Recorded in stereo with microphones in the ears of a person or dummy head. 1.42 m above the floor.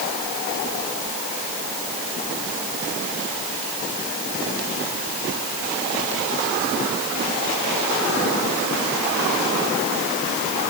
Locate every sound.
Only background noise.